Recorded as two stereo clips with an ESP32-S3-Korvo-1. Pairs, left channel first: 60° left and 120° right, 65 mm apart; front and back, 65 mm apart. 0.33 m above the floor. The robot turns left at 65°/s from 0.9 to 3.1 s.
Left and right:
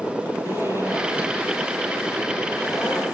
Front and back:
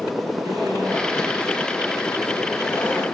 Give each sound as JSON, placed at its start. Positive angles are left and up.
{"t": 0.5, "sound": "a zipper", "azimuth_deg": -165, "distance_m": 9.5}